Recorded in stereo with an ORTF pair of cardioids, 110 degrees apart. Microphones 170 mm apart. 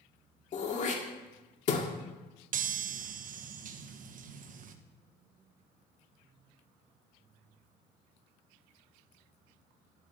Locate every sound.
0.5 s throat clearing: 45° left, 1.9 m
2.5 s a chime: 55° right, 1.0 m